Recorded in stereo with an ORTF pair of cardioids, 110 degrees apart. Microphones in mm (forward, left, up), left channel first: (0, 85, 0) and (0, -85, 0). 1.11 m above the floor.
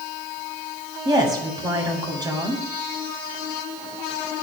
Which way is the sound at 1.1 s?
25° right.